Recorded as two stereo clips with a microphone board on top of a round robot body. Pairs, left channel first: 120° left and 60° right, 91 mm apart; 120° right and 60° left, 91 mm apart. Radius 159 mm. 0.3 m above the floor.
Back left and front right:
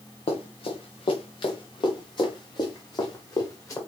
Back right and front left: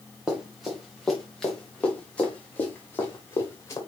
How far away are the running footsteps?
About 3.5 m.